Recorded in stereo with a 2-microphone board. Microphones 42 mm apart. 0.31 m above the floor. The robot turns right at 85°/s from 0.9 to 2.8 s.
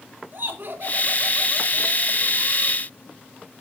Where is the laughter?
55° right, 3 m; by 2.8 s 105° left, 3 m.